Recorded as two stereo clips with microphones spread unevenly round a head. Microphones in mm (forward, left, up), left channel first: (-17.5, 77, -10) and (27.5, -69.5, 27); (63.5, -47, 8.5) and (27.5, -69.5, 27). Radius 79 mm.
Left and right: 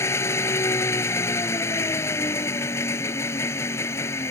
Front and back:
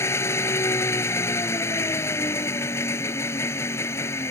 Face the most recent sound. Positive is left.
turn(degrees=35)